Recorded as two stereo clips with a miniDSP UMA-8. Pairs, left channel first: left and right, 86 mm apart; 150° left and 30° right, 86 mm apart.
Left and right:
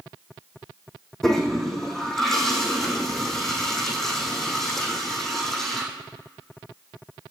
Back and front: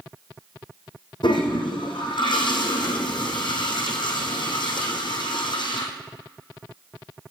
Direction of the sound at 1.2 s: 175° left.